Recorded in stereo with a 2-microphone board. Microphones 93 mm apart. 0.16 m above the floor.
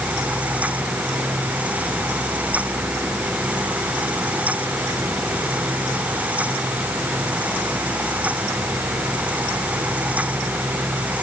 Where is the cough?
I don't hear a cough.